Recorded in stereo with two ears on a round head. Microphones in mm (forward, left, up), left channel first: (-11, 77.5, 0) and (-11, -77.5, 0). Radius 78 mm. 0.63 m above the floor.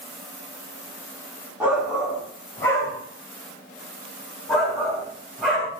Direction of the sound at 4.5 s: 5° left (ahead or behind).